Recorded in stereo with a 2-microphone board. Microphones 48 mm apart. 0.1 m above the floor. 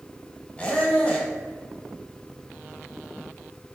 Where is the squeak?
20° left (ahead or behind), 1.3 m.